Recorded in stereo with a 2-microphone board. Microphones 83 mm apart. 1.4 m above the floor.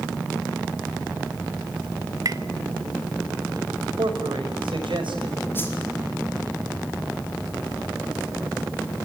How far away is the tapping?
About 0.9 m.